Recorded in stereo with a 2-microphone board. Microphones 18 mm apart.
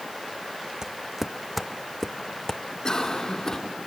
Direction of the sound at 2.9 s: 40° left (ahead or behind).